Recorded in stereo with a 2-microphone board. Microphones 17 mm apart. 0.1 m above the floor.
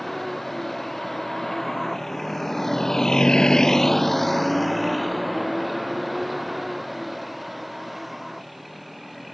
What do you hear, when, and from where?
0.0 s a vehicle: 5° left (ahead or behind); by 9.3 s centre (ahead or behind)